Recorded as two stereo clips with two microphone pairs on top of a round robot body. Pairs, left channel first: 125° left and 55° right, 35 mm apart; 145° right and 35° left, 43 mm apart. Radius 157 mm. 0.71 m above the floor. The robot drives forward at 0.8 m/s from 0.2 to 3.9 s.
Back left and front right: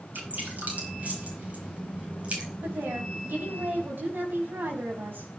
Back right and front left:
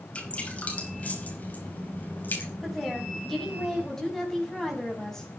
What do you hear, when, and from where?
0.1 s dripping: 85° right, 5 m; by 2.5 s 105° right, 5.5 m
2.6 s a woman speaking: 55° right, 6.5 m; by 5.3 s 65° right, 5.5 m